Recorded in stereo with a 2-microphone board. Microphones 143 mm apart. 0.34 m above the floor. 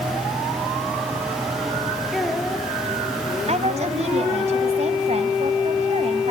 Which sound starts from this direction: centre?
A child speaking, at 2.1 s.